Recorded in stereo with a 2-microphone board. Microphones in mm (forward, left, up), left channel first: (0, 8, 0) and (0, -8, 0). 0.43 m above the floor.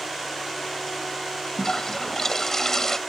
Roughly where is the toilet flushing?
Left.